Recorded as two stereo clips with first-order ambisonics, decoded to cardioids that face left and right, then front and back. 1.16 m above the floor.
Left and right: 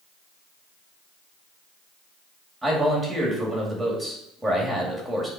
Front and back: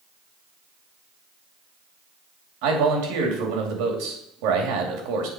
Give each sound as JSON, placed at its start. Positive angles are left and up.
{"t": 2.6, "sound": "a man speaking", "azimuth_deg": 180, "distance_m": 2.0}